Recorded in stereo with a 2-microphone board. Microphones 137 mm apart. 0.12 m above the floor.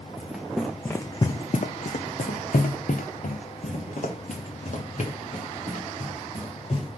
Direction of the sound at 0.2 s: 5° right (ahead or behind).